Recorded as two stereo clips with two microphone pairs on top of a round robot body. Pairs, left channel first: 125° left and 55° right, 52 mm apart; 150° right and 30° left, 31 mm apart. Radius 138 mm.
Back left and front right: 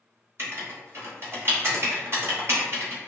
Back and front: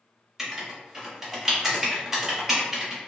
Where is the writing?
25° right, 1.4 m.